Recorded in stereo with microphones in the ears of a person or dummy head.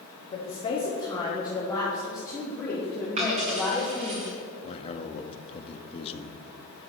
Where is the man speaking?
30° left (ahead or behind), 0.8 m.